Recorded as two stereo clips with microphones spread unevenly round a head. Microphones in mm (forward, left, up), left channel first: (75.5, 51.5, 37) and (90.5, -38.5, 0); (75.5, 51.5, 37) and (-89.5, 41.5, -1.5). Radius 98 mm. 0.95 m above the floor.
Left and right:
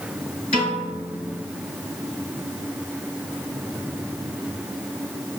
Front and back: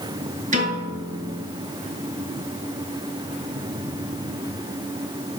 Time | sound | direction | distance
0.5 | a piano | 135° left | 4 m